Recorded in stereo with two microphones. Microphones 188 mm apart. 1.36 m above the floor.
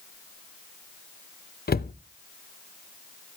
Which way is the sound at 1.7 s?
55° left (ahead or behind).